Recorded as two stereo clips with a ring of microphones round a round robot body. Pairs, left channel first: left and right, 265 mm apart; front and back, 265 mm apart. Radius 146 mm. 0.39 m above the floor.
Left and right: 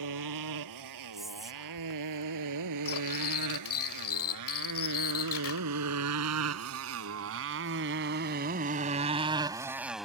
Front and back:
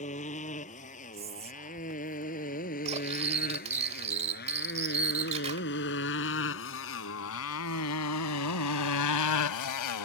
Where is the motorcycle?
70° right; by 10.1 s straight ahead.